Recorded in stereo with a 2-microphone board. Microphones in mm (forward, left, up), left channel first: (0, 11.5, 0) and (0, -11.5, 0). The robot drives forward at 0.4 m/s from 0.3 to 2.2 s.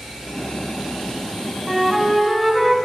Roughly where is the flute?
Centre.